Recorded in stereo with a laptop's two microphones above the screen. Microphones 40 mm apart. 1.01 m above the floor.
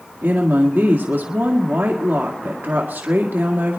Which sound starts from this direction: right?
A woman speaking, at 0.2 s.